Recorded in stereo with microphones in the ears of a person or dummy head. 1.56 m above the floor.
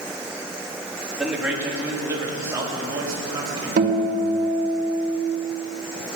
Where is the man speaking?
5° right (ahead or behind), 2.5 m; by 3.7 s 20° right (ahead or behind), 3.5 m.